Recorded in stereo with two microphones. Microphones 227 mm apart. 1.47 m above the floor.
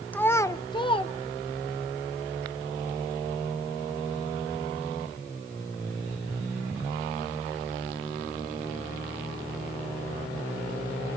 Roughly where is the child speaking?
Centre.